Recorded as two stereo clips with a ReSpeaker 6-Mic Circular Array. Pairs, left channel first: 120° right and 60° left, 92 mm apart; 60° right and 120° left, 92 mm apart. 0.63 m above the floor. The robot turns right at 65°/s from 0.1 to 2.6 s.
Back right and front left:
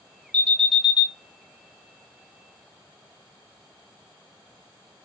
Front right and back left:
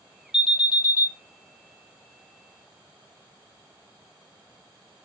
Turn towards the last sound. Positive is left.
turn(degrees=90)